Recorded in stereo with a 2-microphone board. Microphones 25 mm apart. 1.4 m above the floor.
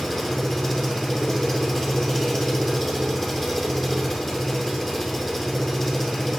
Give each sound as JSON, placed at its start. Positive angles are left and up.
{"t": 0.0, "sound": "an engine running", "side_deg": 10, "distance_m": 2.5}